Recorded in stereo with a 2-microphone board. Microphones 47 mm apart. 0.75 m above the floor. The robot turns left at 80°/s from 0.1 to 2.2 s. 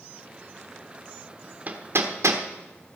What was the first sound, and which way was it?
Hammering, 30° right (ahead or behind).